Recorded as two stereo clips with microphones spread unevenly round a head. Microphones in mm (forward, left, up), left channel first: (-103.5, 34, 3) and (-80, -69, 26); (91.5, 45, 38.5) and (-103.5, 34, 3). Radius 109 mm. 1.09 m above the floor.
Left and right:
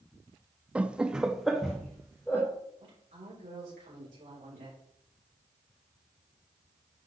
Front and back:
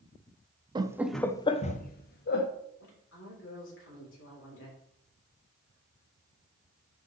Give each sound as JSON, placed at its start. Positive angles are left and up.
{"t": 0.8, "sound": "laughter", "azimuth_deg": -170, "distance_m": 0.6}
{"t": 2.8, "sound": "a woman speaking", "azimuth_deg": -30, "distance_m": 4.0}